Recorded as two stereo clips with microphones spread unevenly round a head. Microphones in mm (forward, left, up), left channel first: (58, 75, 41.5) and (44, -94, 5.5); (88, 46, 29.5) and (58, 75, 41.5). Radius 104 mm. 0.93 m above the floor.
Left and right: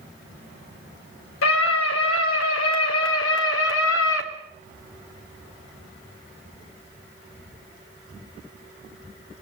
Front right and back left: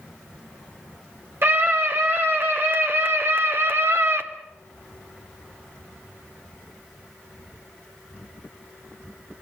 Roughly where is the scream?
Left.